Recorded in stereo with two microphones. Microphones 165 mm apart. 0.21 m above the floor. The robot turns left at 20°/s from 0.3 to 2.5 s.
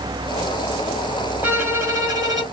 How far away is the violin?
About 1.3 m.